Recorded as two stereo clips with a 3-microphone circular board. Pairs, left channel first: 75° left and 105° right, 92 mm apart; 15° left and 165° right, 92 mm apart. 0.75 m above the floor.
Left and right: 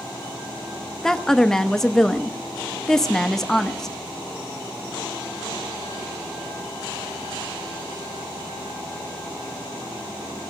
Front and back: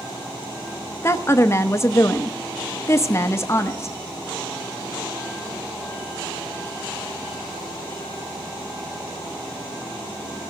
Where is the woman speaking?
5° right, 0.7 m.